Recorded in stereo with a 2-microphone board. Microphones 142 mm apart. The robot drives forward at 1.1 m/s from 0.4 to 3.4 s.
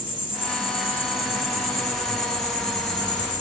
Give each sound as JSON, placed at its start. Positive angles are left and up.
{"t": 0.0, "sound": "an insect", "side_deg": 40, "distance_m": 6.0}